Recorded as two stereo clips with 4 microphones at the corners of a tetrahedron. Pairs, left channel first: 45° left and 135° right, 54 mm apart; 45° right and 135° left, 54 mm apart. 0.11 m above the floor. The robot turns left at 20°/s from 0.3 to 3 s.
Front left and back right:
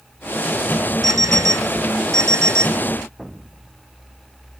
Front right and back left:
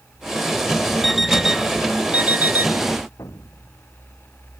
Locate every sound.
1.0 s an alarm clock: 135° right; by 2.8 s 170° right
3.2 s an explosion: 50° right